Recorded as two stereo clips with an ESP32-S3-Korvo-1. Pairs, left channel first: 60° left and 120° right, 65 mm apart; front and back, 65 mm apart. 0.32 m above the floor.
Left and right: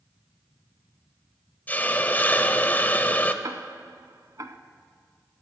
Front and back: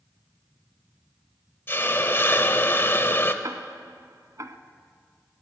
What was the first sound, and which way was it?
A hiss, 20° left.